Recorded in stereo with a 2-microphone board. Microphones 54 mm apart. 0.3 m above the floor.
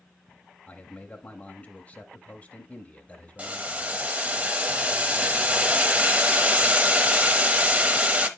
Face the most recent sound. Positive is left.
turn(degrees=-25)  # may be behind; listen again after turning